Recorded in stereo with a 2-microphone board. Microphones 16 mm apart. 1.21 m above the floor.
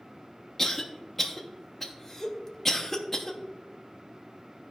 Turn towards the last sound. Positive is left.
turn(degrees=15)  # may be behind; listen again after turning